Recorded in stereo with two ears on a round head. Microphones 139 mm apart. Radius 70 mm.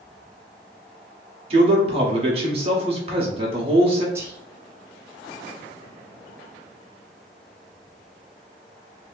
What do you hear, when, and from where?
1.5 s a man speaking: 40° right (ahead or behind), 0.9 m
4.2 s whispering: 20° right (ahead or behind), 0.6 m